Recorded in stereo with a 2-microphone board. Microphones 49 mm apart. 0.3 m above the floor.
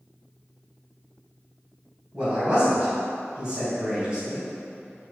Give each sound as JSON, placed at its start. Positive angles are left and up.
{"t": 2.1, "sound": "a man speaking", "side_deg": -25, "distance_m": 1.8}